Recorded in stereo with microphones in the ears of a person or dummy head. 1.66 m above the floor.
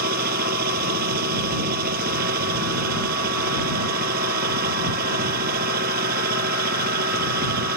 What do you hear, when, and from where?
0.0 s a machine running: 50° right (ahead or behind)